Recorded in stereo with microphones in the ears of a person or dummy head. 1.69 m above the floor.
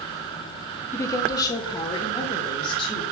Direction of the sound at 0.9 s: 20° left (ahead or behind).